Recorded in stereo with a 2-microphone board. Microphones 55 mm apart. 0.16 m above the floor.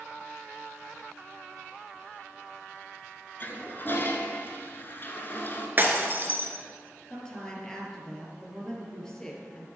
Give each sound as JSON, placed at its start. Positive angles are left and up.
{"t": 3.4, "sound": "a toilet flushing", "side_deg": 40, "distance_m": 1.2}
{"t": 5.8, "sound": "breaking glass", "side_deg": -40, "distance_m": 1.4}
{"t": 7.1, "sound": "a woman speaking", "side_deg": 10, "distance_m": 2.5}